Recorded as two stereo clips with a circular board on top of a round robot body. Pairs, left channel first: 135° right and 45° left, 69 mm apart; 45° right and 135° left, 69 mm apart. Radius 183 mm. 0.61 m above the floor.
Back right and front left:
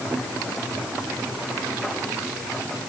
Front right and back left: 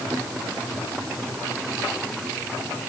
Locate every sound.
Only background noise.